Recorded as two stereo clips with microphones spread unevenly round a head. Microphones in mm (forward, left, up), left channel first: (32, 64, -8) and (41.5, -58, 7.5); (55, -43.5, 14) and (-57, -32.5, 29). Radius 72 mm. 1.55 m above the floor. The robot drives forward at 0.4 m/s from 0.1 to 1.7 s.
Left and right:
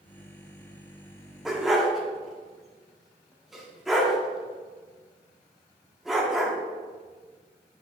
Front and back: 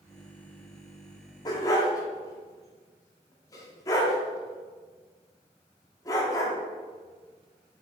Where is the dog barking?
15° right, 1.1 m; by 6.5 s 20° right, 1.1 m.